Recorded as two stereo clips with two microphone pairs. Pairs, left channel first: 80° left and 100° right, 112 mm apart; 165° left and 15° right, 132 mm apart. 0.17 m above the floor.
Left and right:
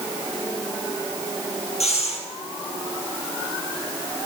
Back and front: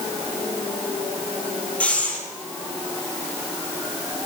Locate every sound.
1.8 s breathing: 85° left, 3.5 m